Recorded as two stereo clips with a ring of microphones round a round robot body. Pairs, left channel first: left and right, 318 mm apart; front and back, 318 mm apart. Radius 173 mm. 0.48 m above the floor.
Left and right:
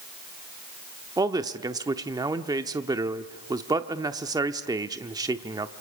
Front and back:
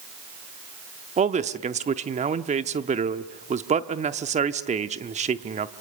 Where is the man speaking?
150° right, 0.7 m.